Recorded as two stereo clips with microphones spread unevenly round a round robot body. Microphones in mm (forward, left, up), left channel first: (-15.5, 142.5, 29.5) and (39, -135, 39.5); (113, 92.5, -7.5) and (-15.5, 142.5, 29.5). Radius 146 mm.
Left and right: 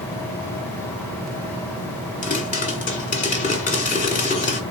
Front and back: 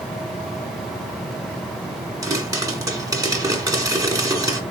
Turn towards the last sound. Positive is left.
turn(degrees=90)